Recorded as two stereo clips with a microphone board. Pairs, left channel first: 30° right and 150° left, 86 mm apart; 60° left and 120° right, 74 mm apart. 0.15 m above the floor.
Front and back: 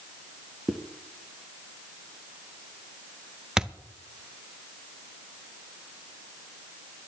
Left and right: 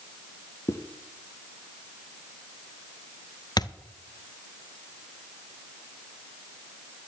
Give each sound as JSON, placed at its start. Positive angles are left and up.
{"t": 0.7, "sound": "a zipper", "azimuth_deg": 65, "distance_m": 1.0}
{"t": 3.6, "sound": "a thud", "azimuth_deg": 70, "distance_m": 0.6}